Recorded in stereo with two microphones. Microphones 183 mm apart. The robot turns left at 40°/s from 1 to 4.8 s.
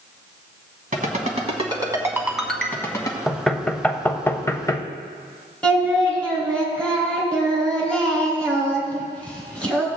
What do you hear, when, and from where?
0.9 s a ringtone: 50° right (ahead or behind), 1.4 m; by 3.2 s 25° left (ahead or behind), 1.4 m
3.3 s knocking: centre (ahead or behind), 0.6 m; by 4.8 s 20° left (ahead or behind), 0.6 m
5.6 s singing: 5° left (ahead or behind), 2 m